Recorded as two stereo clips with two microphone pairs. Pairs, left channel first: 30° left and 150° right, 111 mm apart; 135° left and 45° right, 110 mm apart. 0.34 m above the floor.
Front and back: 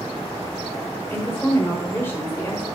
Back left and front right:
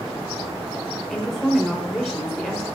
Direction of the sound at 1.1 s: 50° left.